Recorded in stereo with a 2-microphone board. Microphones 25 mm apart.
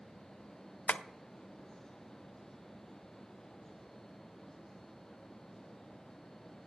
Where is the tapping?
65° left (ahead or behind), 0.5 m.